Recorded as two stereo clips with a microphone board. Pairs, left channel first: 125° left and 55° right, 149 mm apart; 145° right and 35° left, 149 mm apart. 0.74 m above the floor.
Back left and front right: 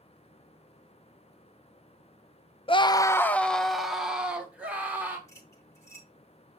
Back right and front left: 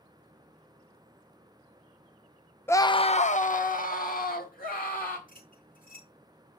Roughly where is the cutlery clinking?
Behind.